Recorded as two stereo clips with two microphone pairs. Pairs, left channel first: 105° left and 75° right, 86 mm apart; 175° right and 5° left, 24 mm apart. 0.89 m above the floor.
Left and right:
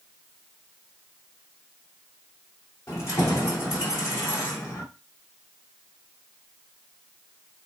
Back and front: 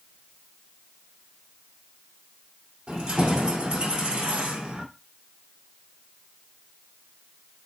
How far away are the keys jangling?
About 1.8 m.